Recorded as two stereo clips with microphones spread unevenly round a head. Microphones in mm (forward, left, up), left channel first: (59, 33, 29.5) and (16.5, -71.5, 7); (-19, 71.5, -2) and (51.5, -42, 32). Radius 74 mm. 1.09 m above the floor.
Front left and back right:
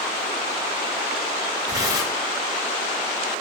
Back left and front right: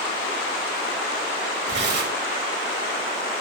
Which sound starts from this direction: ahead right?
Tearing paper, at 1.7 s.